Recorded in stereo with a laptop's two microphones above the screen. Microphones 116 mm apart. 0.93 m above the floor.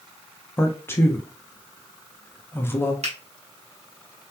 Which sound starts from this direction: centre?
A man speaking, at 0.6 s.